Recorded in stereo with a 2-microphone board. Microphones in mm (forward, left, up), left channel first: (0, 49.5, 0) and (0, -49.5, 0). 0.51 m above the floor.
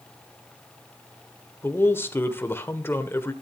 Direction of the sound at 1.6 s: 25° left (ahead or behind).